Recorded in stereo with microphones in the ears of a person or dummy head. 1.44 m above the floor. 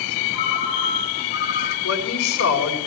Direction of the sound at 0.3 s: 55° left (ahead or behind).